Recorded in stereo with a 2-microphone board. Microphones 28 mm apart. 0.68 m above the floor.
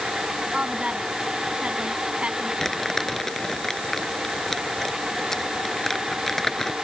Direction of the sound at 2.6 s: 15° left (ahead or behind).